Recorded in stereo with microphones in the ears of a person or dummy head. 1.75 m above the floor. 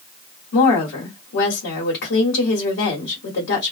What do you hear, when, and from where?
0.5 s a woman speaking: 75° left (ahead or behind), 1.3 m